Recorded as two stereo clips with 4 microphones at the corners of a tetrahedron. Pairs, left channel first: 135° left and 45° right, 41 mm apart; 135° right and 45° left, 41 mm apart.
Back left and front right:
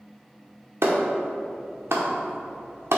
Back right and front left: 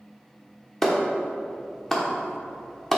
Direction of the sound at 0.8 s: 55° right.